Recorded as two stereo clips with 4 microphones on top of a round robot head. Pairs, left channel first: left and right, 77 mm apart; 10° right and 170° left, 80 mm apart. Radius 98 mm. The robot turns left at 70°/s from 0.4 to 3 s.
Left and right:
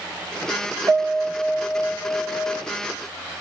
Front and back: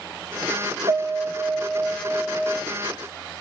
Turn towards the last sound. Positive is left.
turn(degrees=75)